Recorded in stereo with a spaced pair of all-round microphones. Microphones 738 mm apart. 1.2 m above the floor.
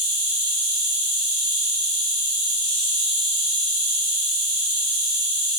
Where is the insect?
25° right (ahead or behind), 1.5 m.